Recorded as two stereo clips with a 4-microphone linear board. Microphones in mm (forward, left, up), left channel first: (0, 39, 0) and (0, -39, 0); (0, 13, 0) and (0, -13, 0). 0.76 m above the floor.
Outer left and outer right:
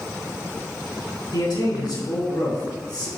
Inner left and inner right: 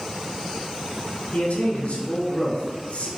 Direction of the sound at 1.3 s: 75° left (ahead or behind).